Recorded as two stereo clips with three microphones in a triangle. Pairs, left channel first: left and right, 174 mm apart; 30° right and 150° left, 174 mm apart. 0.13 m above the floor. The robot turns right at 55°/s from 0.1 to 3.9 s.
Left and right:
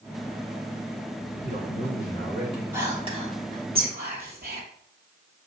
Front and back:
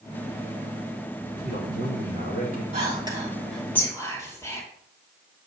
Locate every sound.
1.4 s a man speaking: 125° left, 4 m; by 2.6 s 170° right, 4 m
2.7 s whispering: 165° right, 3.5 m; by 4.6 s 100° right, 3.5 m